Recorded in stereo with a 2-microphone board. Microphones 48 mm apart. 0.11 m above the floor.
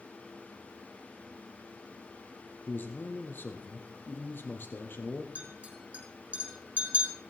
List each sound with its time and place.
2.7 s a man speaking: 45° left (ahead or behind), 3 m
5.3 s a clink: 30° right (ahead or behind), 4.5 m